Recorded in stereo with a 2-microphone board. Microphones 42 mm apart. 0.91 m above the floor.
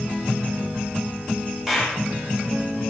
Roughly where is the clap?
Centre.